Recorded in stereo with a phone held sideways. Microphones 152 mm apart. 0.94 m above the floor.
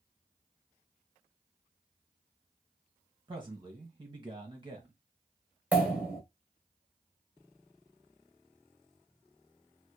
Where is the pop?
10° right (ahead or behind), 1.1 m.